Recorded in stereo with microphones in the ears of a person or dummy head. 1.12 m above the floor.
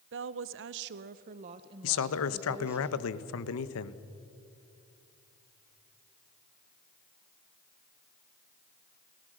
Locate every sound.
0.1 s a woman speaking: 65° right (ahead or behind), 0.7 m; by 2.8 s 5° right (ahead or behind), 1.2 m
1.8 s a man speaking: 75° left (ahead or behind), 1.0 m